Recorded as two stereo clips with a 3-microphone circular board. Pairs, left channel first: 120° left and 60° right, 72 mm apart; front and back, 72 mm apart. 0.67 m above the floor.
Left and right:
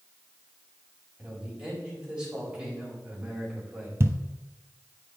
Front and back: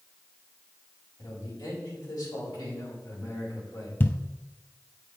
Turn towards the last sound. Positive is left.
turn(degrees=-40)